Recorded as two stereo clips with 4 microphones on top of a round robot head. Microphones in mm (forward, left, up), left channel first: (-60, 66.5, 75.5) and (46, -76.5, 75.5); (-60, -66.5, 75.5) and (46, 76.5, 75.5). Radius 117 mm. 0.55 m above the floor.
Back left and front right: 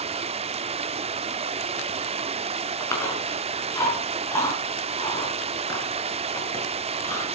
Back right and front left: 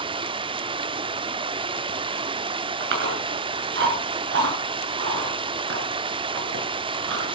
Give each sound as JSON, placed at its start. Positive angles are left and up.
{"t": 0.0, "sound": "running water", "azimuth_deg": -5, "distance_m": 0.9}
{"t": 2.8, "sound": "chewing", "azimuth_deg": 55, "distance_m": 6.5}